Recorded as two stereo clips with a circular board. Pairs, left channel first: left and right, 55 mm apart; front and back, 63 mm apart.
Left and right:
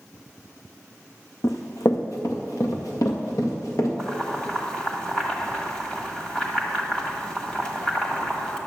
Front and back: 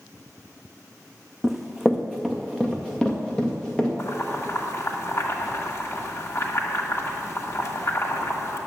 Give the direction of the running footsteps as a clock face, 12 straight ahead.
9 o'clock.